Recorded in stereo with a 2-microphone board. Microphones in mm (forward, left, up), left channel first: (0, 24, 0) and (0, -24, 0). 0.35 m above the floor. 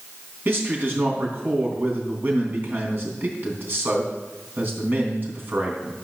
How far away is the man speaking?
About 3.5 m.